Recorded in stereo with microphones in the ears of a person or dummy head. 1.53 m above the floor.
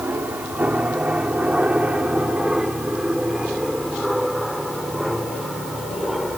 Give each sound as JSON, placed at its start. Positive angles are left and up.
{"t": 0.0, "sound": "an aircraft", "side_deg": -5}